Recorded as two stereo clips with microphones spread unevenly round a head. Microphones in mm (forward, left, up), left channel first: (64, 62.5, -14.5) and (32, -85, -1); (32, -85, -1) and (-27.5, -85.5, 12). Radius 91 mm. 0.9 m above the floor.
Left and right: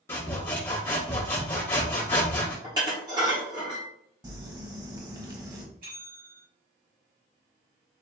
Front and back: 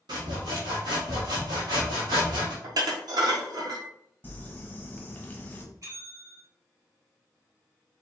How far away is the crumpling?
About 1.1 m.